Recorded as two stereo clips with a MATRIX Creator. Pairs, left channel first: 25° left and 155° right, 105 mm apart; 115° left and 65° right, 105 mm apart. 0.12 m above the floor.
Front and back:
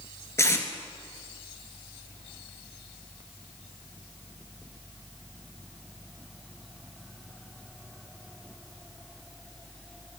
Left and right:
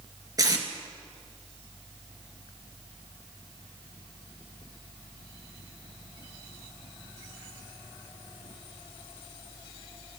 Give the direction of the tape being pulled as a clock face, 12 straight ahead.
1 o'clock.